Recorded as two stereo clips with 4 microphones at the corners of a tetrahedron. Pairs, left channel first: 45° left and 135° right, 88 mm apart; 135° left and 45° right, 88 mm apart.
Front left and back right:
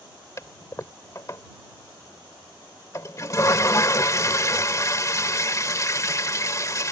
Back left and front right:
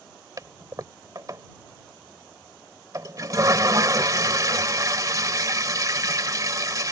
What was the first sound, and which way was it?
A toilet flushing, 5° right.